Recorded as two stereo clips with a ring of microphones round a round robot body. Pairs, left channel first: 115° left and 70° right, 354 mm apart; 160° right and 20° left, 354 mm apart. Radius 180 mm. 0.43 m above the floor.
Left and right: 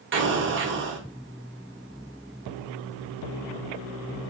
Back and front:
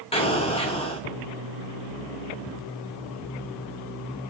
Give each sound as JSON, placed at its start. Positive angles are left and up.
{"t": 0.1, "sound": "an explosion", "azimuth_deg": -95, "distance_m": 0.7}